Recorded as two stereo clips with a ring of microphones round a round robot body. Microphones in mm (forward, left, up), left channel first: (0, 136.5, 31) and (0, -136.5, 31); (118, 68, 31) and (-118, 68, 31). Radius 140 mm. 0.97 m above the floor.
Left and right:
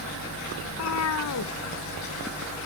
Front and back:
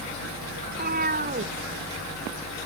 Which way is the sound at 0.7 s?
125° left.